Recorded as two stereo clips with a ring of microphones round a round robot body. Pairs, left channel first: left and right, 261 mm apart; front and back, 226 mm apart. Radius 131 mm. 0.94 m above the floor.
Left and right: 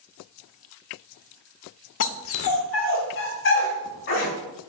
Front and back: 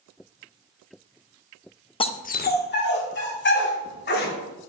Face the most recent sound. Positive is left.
turn(degrees=40)